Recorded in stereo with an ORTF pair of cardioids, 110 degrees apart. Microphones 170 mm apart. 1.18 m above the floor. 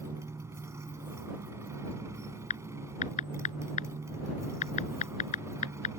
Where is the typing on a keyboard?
45° left.